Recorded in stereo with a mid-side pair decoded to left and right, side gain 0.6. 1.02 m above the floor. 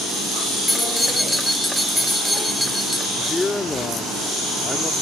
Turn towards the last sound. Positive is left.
turn(degrees=15)